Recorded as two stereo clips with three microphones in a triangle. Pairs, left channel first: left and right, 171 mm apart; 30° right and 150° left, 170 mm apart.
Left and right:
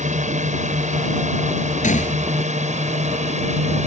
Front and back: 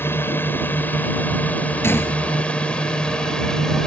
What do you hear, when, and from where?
0.0 s a drone: 105° right; by 3.9 s 115° right
1.8 s a gunshot: 45° left